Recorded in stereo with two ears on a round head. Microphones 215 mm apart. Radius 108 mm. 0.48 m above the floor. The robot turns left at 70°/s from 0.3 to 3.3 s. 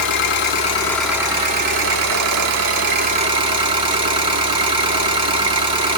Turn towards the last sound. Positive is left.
turn(degrees=-160)